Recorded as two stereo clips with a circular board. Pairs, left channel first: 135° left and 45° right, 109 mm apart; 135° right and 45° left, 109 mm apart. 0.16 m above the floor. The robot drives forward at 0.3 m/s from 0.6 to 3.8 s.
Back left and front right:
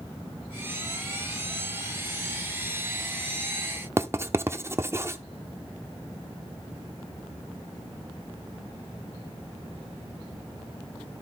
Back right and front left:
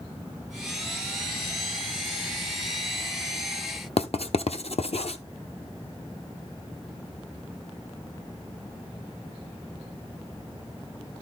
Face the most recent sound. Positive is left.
turn(degrees=-110)